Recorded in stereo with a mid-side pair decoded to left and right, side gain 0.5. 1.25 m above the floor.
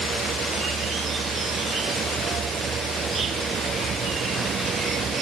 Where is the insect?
50° right.